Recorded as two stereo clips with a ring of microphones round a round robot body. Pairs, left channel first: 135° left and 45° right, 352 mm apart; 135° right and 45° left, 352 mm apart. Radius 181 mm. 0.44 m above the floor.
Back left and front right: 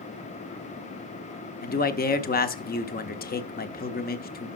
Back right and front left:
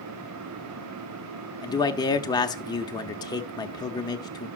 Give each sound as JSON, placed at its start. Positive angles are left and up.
{"t": 1.6, "sound": "a man speaking", "azimuth_deg": 160, "distance_m": 0.9}